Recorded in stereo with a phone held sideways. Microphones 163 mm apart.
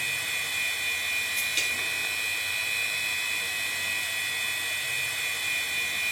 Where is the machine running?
Centre (ahead or behind), 1.0 m.